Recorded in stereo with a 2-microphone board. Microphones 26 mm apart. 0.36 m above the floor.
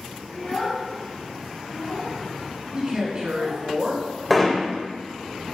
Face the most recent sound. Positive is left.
turn(degrees=0)  # may be behind; listen again after turning